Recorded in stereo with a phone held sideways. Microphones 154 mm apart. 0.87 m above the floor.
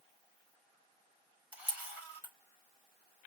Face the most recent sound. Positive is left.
turn(degrees=-10)  # may be behind; listen again after turning